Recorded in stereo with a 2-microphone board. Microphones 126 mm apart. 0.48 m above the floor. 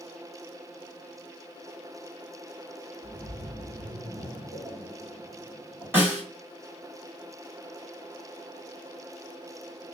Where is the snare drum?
15° right (ahead or behind), 1.7 m.